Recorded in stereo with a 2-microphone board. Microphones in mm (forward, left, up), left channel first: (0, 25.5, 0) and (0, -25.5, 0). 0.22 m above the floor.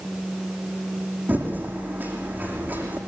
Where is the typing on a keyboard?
35° right (ahead or behind), 6.5 m.